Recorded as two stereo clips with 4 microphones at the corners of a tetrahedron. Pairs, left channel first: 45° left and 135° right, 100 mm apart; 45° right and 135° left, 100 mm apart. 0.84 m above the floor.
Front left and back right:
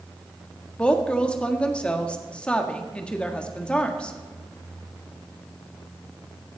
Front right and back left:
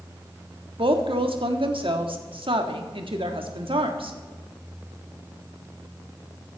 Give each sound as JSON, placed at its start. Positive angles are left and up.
{"t": 0.8, "sound": "a woman speaking", "azimuth_deg": 125, "distance_m": 1.4}